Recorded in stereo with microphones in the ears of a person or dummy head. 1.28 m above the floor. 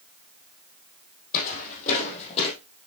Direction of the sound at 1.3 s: 45° left (ahead or behind).